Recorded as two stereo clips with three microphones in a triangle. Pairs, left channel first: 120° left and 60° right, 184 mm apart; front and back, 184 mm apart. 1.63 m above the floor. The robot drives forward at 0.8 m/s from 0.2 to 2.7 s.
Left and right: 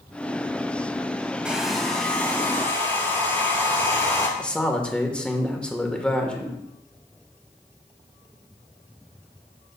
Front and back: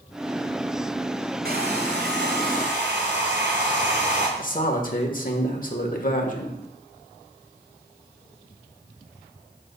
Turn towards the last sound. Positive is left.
turn(degrees=35)